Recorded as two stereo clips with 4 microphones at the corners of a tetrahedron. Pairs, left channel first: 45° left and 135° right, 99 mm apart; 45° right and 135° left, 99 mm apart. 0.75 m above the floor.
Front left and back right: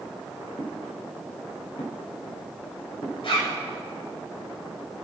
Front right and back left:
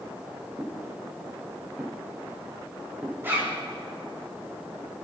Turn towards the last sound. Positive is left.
turn(degrees=70)